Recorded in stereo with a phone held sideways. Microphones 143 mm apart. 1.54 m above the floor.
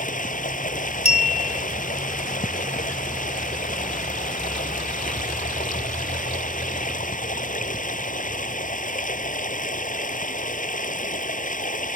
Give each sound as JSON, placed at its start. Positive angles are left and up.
{"t": 0.0, "sound": "running water", "side_deg": 70}
{"t": 1.1, "sound": "a clink", "side_deg": 45}